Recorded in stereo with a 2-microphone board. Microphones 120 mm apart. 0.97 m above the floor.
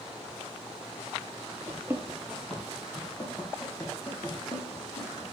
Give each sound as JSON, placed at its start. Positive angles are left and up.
{"t": 1.7, "sound": "running footsteps", "side_deg": -25, "distance_m": 1.0}